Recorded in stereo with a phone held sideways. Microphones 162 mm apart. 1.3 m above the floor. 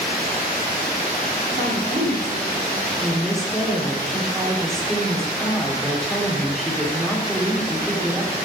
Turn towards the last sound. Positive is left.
turn(degrees=0)  # may be behind; listen again after turning